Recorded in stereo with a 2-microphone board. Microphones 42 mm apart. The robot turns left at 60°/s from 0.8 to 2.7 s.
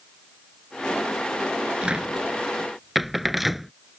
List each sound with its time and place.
1.8 s a cupboard door: 25° right (ahead or behind); by 3.7 s 5° right (ahead or behind)